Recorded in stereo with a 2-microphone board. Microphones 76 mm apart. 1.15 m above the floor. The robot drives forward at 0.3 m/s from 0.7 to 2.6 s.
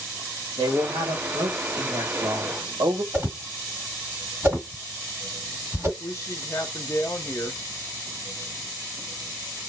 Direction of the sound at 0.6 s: 75° right (ahead or behind).